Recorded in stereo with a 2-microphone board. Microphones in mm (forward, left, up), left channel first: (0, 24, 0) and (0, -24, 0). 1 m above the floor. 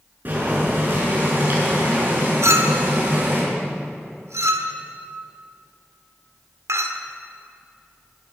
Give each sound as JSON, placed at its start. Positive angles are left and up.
{"t": 0.2, "sound": "boiling", "side_deg": -40, "distance_m": 6.5}
{"t": 2.4, "sound": "a clink", "side_deg": -80, "distance_m": 1.5}